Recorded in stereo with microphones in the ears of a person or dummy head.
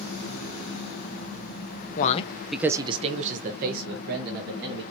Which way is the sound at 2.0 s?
45° left (ahead or behind).